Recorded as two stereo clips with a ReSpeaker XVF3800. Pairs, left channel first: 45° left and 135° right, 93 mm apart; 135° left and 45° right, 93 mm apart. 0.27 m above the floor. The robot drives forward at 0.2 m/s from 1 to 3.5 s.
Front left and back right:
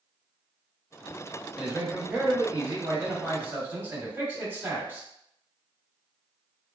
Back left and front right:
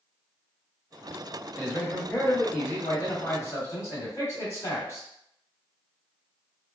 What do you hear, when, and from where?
1.6 s a man speaking: 160° left, 0.9 m; by 5.1 s 170° left, 1.1 m